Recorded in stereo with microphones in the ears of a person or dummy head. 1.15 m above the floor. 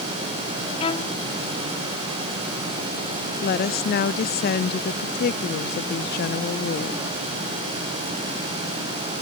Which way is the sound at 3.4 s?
50° left (ahead or behind).